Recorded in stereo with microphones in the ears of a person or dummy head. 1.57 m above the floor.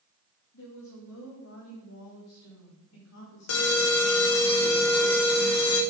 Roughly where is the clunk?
No clunk in this recording.